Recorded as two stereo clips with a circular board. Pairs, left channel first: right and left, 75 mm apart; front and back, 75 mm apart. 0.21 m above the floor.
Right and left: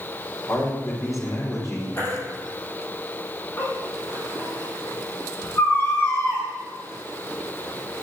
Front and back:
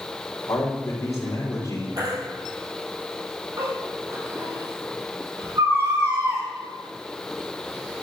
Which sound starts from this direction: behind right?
A baby crying, at 2.0 s.